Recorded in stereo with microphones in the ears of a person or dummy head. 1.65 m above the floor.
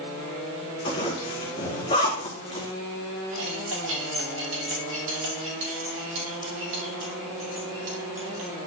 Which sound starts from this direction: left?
A zipper, at 0.8 s.